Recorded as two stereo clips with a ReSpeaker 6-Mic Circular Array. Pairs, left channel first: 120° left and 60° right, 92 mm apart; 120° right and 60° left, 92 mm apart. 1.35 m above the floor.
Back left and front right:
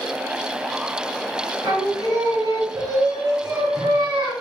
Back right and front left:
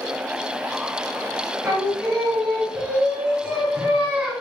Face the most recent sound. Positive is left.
turn(degrees=-20)